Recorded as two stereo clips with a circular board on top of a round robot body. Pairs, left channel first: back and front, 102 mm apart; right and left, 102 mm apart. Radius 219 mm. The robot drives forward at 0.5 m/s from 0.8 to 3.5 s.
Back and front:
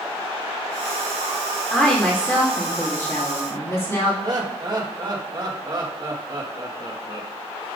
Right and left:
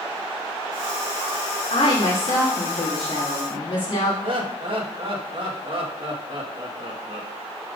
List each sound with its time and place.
1.7 s a woman speaking: 95° right, 2.5 m; by 4.1 s 115° right, 2.5 m
4.2 s laughter: 55° left, 1.6 m